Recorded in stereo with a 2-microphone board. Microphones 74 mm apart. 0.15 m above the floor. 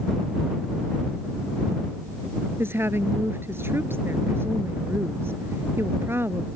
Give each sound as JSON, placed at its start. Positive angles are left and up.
{"t": 2.6, "sound": "a woman speaking", "side_deg": -35}